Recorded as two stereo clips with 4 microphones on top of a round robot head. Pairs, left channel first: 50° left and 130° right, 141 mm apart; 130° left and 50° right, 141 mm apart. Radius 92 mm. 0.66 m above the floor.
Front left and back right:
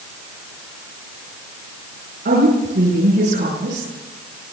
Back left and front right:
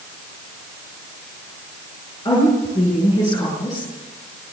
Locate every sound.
2.2 s a woman speaking: 165° right, 10 m